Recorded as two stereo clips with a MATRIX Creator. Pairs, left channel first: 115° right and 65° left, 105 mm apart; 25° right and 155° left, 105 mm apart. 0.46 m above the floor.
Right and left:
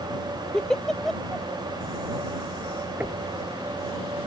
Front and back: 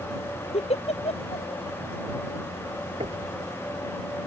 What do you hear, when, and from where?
0.5 s a giggle: 30° right
3.0 s knocking: 145° left